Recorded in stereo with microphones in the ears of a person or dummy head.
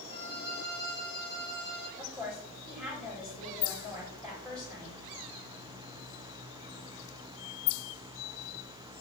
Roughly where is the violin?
Right.